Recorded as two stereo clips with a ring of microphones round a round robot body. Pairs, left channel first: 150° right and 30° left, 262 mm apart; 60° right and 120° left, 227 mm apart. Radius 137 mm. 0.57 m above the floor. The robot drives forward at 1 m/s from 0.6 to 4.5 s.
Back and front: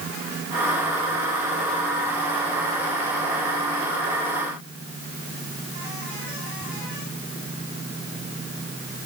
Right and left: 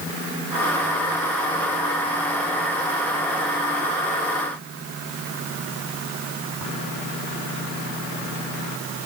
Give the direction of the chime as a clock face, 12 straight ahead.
I don't hear a chime.